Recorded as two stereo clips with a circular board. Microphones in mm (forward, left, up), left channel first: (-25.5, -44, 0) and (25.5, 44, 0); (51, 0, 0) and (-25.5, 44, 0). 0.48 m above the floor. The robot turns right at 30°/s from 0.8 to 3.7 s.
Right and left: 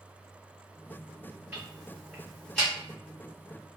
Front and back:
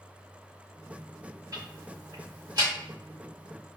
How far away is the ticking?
About 1.6 m.